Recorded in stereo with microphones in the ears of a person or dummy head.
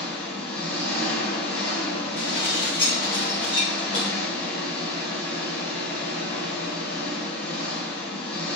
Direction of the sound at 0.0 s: 60° left (ahead or behind).